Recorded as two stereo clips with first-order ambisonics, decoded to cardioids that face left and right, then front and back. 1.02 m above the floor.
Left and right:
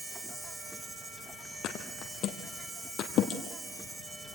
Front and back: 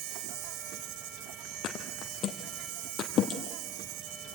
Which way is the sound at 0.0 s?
175° right.